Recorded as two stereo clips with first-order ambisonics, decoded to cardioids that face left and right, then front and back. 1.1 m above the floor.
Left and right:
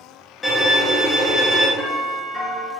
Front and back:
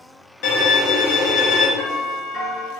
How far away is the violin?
About 0.7 m.